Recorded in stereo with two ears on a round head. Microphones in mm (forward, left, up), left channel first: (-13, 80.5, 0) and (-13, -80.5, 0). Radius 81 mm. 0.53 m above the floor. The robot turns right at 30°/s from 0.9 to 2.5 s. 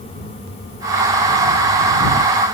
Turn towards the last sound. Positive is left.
No sound to turn to.